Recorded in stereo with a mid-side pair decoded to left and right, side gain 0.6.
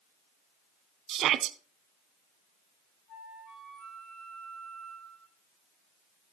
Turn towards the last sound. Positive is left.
turn(degrees=55)